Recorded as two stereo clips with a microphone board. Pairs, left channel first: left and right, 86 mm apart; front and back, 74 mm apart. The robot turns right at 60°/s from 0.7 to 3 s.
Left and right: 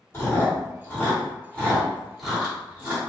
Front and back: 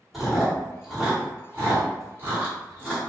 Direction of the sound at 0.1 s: 95° left.